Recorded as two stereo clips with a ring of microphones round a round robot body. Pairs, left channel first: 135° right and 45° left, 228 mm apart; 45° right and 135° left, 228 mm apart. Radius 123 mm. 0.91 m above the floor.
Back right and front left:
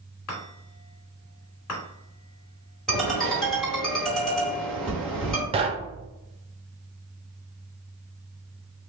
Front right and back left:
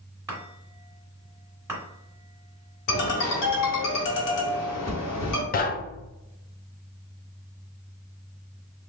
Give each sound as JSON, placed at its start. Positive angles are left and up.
{"t": 0.3, "sound": "a chime", "azimuth_deg": -145, "distance_m": 2.0}
{"t": 2.9, "sound": "a ringtone", "azimuth_deg": -45, "distance_m": 1.4}
{"t": 5.5, "sound": "knocking", "azimuth_deg": -10, "distance_m": 0.5}